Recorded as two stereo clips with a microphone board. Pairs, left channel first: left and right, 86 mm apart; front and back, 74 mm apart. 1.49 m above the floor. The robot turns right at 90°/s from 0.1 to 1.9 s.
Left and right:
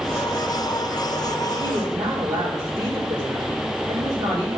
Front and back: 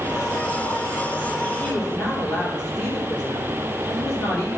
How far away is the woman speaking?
About 3.5 m.